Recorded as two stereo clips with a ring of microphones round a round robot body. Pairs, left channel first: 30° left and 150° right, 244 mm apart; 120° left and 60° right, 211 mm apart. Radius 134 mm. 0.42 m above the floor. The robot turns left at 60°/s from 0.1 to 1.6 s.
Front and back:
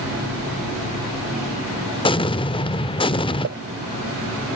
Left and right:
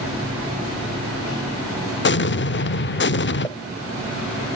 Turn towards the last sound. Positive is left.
turn(degrees=-165)